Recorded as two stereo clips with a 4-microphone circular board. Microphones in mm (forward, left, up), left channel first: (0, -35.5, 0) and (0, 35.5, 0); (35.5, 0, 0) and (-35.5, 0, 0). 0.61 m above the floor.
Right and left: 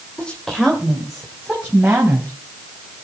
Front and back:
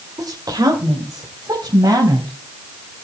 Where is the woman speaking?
165° right, 2.5 m; by 2.3 s 155° left, 4.5 m.